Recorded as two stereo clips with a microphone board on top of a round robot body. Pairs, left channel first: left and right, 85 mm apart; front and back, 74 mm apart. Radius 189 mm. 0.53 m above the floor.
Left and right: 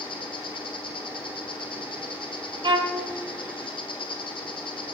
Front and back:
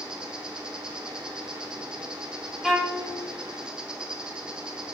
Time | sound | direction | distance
0.0 | an insect | 100° left | 0.9 m
2.6 | a violin | 90° right | 1.4 m